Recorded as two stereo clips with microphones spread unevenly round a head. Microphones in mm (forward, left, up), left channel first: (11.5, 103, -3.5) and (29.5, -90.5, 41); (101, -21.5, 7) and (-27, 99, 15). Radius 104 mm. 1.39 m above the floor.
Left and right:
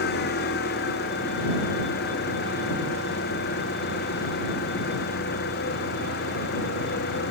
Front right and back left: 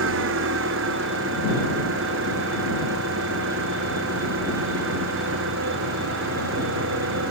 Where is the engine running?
140° left.